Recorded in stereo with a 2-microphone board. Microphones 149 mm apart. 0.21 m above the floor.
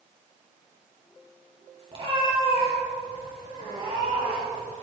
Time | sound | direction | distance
1.9 | a cat meowing | 35° right (ahead or behind) | 3.5 m